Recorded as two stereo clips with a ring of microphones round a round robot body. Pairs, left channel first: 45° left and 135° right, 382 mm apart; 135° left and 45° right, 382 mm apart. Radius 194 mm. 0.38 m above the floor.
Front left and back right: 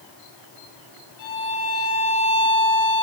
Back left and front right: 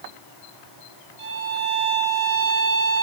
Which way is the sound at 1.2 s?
10° right.